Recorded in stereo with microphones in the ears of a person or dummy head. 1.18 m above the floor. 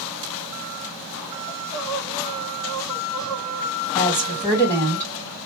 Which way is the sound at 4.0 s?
20° left (ahead or behind).